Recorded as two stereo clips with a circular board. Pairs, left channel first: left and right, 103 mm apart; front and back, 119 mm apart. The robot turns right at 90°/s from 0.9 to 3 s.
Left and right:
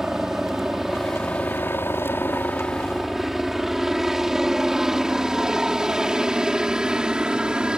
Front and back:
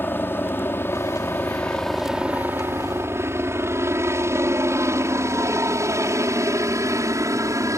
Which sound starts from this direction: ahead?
A helicopter, at 0.0 s.